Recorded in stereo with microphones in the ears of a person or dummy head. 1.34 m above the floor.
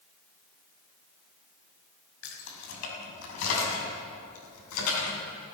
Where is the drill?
I don't hear a drill.